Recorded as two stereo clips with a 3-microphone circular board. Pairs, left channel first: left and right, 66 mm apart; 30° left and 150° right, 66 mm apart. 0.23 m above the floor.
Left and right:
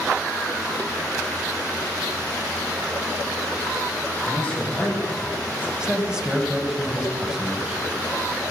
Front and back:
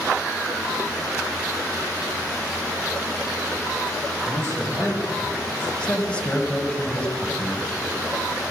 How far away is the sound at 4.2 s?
About 6.5 m.